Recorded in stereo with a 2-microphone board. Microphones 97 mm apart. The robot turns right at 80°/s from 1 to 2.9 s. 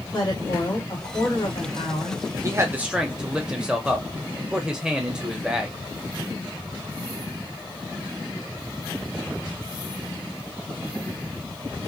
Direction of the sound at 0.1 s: 45° left.